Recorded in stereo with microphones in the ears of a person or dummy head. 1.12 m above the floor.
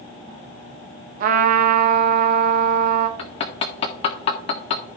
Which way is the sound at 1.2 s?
50° right (ahead or behind).